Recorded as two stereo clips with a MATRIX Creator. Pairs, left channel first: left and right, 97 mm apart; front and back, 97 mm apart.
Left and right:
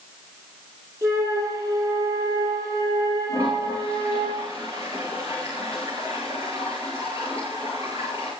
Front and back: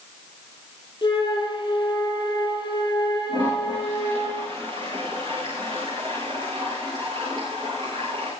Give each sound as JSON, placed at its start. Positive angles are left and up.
{"t": 1.0, "sound": "a flute", "azimuth_deg": -40, "distance_m": 4.5}
{"t": 3.3, "sound": "a toilet flushing", "azimuth_deg": -150, "distance_m": 9.0}